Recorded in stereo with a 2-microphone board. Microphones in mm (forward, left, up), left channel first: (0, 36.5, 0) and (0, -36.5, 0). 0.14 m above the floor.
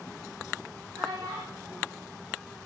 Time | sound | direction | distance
0.9 | a child speaking | 55° right (ahead or behind) | 5 m